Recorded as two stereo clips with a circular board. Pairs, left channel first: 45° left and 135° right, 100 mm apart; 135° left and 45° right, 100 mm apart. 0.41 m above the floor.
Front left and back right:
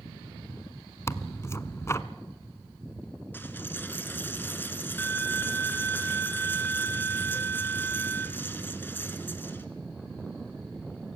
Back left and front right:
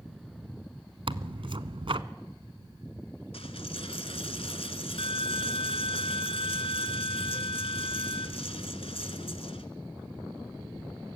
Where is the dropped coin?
115° left, 1.7 m.